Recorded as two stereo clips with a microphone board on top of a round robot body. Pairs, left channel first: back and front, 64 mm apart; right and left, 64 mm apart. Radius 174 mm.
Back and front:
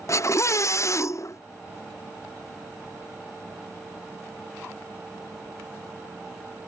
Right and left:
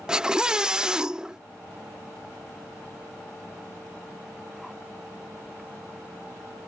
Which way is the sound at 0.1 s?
165° left.